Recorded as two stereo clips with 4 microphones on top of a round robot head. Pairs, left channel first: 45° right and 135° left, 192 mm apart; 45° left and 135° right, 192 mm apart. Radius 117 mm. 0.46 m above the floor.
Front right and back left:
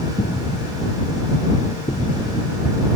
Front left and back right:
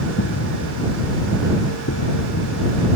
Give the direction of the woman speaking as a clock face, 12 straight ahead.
No woman speaking in this recording.